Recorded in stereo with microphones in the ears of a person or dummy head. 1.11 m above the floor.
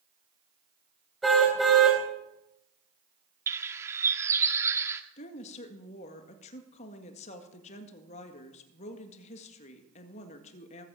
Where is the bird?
15° right (ahead or behind), 1.1 m.